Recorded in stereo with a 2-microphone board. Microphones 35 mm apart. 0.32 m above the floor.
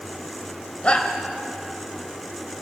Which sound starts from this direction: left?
A shout, at 0.8 s.